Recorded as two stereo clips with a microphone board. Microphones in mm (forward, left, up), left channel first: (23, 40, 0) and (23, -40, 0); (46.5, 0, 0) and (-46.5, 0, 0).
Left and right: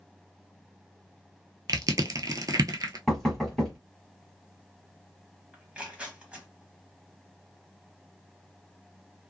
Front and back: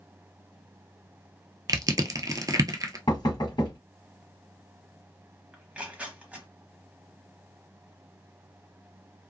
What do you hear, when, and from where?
1.7 s crushing: 130° right, 0.6 m
3.1 s knocking: straight ahead, 1.2 m
5.5 s tearing paper: 130° right, 0.9 m